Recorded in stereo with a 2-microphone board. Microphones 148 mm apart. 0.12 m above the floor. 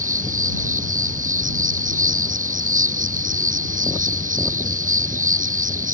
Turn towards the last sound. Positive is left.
turn(degrees=-65)  # may be behind; listen again after turning